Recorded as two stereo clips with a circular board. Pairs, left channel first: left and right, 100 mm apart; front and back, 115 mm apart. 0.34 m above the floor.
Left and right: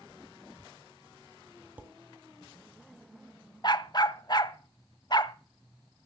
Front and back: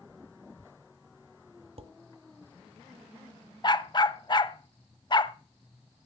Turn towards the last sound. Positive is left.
turn(degrees=45)